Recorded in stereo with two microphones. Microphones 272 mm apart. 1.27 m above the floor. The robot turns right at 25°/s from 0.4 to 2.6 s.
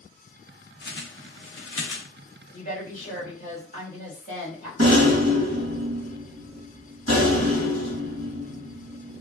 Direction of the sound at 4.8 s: 60° right (ahead or behind).